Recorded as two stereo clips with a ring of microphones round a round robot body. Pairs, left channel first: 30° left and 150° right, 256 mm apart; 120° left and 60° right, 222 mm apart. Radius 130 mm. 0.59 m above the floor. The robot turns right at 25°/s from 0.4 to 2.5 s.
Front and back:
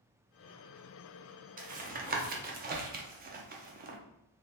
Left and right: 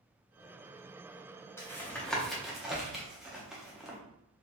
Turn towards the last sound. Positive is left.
turn(degrees=-145)